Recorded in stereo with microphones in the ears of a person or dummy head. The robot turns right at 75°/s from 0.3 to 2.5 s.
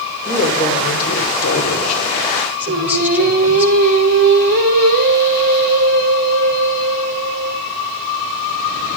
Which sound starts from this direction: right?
Singing, at 2.7 s.